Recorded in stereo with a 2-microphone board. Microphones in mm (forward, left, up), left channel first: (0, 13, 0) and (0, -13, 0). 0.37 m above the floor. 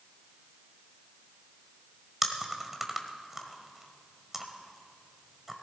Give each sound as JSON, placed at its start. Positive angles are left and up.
{"t": 2.2, "sound": "chewing", "side_deg": -10, "distance_m": 1.2}